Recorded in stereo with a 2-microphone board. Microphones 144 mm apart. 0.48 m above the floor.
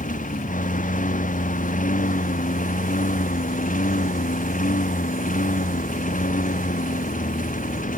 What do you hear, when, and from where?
0.0 s a lawn mower: 80° left